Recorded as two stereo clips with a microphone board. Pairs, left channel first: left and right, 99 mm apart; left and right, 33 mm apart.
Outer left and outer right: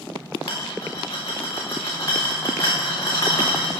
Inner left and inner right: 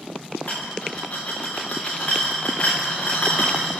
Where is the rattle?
35° left (ahead or behind), 4 m.